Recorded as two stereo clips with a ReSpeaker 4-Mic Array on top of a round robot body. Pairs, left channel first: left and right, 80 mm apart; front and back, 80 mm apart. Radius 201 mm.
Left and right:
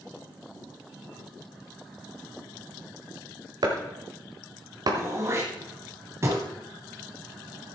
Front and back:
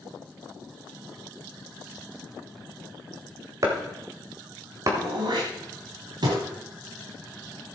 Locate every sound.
3.6 s chopping: 130° right, 1.6 m
5.0 s throat clearing: 150° right, 0.9 m